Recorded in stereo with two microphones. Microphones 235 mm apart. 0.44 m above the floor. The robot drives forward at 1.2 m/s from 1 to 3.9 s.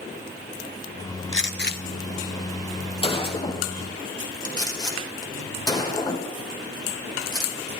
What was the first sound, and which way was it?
A gunshot, 60° left (ahead or behind).